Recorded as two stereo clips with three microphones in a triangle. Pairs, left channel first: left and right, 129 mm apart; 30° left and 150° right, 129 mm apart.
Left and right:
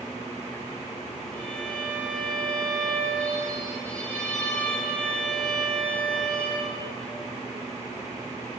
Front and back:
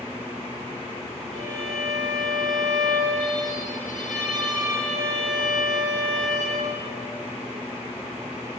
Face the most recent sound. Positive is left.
turn(degrees=10)